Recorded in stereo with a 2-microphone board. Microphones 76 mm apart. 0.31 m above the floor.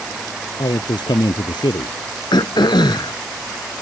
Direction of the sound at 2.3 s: 80° left.